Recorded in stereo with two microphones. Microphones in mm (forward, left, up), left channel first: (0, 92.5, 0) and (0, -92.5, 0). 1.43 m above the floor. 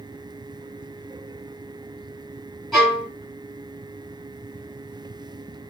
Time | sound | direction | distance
2.7 | a violin | centre (ahead or behind) | 2 m